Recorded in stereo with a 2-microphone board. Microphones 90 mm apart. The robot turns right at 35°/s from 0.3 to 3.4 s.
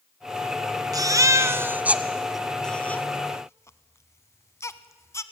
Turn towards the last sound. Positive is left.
turn(degrees=30)  # may be behind; listen again after turning